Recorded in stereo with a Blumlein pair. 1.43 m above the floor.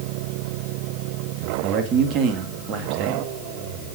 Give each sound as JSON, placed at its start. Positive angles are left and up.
{"t": 1.6, "sound": "a man speaking", "azimuth_deg": -30, "distance_m": 2.5}